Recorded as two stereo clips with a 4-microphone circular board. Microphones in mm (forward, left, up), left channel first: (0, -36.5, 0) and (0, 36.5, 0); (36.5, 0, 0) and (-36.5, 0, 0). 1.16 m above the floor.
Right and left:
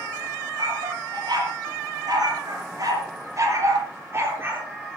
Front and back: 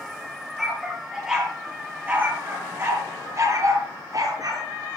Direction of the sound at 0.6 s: 95° left.